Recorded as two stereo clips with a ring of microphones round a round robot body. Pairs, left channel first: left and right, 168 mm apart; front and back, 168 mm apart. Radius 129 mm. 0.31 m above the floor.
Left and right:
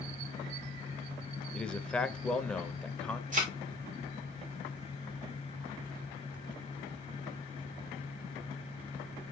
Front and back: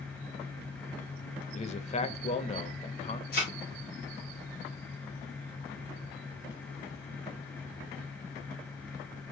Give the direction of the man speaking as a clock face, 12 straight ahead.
12 o'clock.